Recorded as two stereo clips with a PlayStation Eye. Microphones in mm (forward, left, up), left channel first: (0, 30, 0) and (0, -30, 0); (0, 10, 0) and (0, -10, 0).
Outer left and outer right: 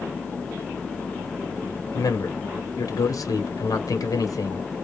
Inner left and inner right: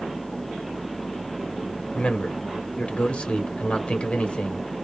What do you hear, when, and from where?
1.9 s a man speaking: 85° left, 1.0 m